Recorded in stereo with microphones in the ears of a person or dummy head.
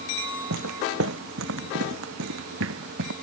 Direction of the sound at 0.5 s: 75° right (ahead or behind).